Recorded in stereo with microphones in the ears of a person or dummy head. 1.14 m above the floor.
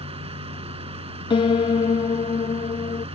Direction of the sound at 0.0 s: 35° right (ahead or behind).